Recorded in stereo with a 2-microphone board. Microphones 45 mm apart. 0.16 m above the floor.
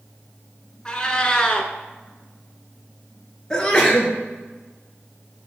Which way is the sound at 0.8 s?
20° left (ahead or behind).